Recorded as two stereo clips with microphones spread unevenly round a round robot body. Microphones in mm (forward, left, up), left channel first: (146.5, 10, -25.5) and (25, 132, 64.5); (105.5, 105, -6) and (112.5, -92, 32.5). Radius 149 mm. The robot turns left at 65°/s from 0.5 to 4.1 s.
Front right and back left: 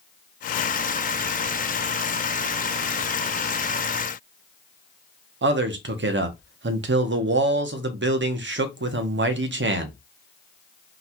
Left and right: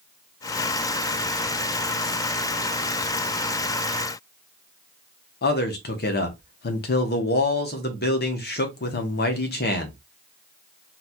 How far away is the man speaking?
About 0.8 m.